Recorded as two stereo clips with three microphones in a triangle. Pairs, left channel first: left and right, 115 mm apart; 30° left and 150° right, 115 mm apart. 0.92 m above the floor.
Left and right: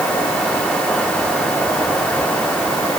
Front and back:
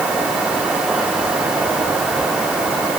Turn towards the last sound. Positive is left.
No sound to turn to.